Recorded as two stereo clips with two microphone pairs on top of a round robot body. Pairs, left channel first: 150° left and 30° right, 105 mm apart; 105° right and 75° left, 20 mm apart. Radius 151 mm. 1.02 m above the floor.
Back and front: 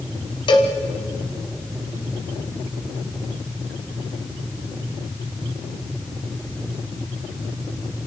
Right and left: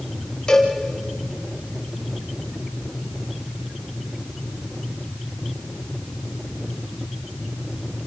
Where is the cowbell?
165° right, 1.6 m.